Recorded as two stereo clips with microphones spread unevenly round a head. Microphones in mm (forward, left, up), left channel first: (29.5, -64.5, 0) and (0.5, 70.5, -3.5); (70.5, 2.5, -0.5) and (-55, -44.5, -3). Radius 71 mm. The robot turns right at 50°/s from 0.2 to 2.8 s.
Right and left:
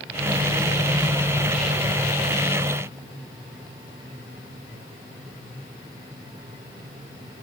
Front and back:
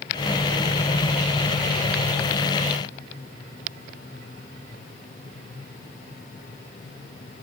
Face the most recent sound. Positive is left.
No sound to turn to.